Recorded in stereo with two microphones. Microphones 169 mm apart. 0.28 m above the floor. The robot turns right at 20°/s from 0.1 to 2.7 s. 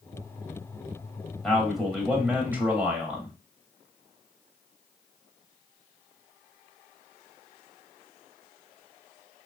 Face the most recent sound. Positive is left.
turn(degrees=-10)  # may be behind; listen again after turning